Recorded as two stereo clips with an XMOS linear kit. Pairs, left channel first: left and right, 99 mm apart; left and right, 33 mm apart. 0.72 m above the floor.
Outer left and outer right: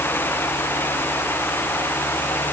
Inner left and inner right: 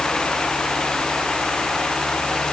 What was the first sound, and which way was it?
Only background noise.